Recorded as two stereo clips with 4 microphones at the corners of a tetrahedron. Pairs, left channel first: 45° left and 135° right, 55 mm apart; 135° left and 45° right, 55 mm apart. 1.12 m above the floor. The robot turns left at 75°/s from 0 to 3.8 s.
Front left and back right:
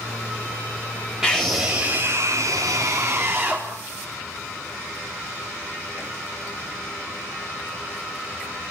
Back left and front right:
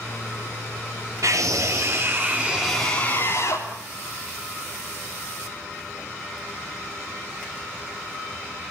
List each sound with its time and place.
1.2 s a scream: 55° right, 3.5 m; by 3.7 s 125° left, 3.5 m